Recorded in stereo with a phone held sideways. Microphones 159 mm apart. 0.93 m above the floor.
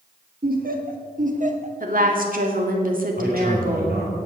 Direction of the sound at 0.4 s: 65° right (ahead or behind).